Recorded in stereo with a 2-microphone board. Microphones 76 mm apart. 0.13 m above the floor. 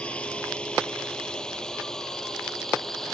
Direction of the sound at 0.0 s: 15° left (ahead or behind).